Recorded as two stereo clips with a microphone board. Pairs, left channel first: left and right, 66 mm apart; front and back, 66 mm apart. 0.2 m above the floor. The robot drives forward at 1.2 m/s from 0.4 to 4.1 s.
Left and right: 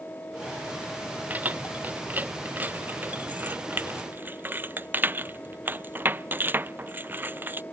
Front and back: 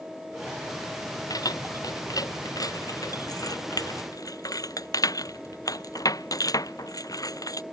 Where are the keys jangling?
25° right; by 7.6 s 30° right.